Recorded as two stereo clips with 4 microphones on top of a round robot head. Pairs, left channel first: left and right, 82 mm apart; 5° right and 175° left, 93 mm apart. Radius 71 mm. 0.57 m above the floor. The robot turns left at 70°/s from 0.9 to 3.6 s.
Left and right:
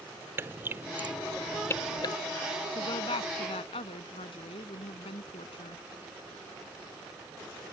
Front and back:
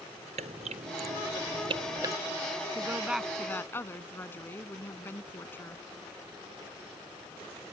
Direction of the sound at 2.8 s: 125° left.